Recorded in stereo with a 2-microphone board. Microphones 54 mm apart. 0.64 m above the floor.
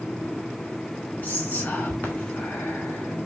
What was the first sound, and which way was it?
Whispering, 30° left (ahead or behind).